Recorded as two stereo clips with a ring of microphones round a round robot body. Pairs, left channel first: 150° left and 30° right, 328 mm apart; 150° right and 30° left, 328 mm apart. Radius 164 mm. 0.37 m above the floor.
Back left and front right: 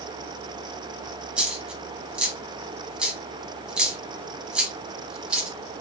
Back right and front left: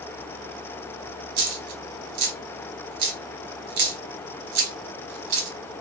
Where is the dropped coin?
60° left, 1.2 m.